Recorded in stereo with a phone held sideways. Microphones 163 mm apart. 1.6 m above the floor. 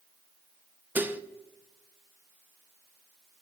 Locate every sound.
0.9 s dishes clattering: 10° right (ahead or behind), 0.6 m